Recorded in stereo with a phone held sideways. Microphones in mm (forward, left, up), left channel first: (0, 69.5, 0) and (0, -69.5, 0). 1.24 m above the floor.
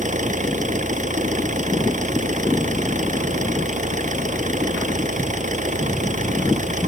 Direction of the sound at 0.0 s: 65° right (ahead or behind).